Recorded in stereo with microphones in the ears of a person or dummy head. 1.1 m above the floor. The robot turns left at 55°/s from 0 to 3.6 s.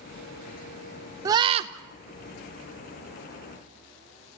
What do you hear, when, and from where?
1.2 s a scream: 20° right (ahead or behind), 0.7 m; by 1.7 s 40° right (ahead or behind), 0.7 m